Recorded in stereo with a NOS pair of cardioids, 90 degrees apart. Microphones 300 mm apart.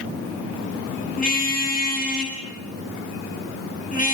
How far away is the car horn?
About 9.5 m.